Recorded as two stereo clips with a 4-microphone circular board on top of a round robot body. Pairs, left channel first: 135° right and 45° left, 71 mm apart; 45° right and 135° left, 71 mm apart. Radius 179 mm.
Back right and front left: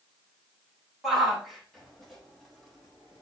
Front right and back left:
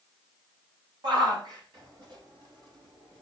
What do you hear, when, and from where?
1.0 s a shout: 130° left, 5.5 m; by 3.2 s 140° left, 6.5 m